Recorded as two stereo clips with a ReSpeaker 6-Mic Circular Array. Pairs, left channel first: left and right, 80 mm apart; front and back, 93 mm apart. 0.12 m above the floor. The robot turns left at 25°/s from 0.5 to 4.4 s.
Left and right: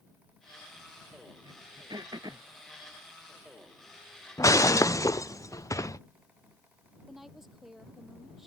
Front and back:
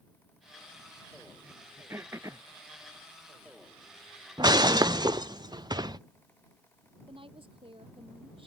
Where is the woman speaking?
175° right.